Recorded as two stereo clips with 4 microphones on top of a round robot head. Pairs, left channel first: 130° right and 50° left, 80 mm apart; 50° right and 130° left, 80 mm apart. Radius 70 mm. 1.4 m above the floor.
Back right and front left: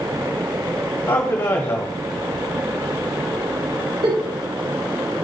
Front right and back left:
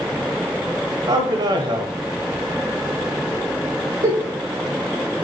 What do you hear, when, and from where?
1.1 s a man speaking: 165° left, 1.1 m
4.0 s a giggle: 75° left, 4 m